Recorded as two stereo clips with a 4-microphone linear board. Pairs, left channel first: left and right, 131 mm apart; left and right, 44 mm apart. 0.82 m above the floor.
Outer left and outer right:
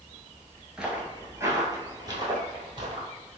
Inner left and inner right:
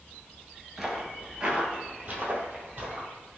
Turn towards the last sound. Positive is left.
turn(degrees=-40)  # may be behind; listen again after turning